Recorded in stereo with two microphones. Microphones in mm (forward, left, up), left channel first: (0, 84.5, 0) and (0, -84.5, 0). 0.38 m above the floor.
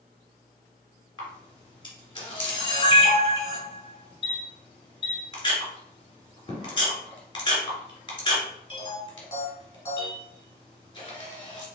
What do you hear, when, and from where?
1.2 s a camera shutter: 30° left (ahead or behind), 1.6 m